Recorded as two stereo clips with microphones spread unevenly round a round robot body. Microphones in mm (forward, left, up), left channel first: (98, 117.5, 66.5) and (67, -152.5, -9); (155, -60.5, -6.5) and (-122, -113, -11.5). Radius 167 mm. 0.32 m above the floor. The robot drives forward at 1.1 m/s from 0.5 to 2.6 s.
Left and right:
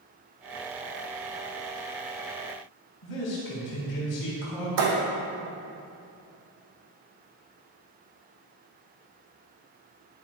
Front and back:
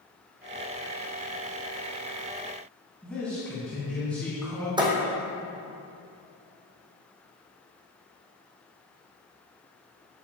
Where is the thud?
95° right, 2.5 m.